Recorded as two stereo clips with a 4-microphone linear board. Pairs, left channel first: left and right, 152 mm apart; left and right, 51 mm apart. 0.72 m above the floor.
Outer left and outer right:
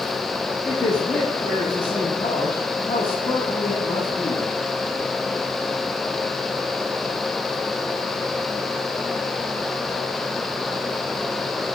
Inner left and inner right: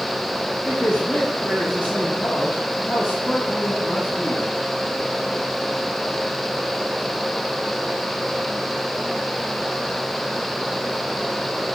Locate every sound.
0.7 s a man speaking: 35° left (ahead or behind), 1.1 m